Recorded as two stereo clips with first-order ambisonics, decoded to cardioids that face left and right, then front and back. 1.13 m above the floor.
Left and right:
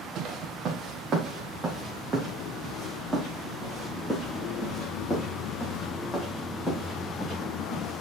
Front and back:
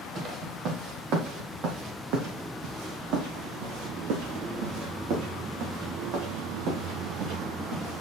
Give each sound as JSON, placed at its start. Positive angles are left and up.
{"t": 0.1, "sound": "footsteps", "azimuth_deg": -130, "distance_m": 2.0}